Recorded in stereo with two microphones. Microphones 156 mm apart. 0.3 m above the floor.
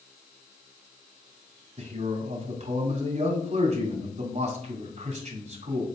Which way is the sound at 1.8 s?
45° right (ahead or behind).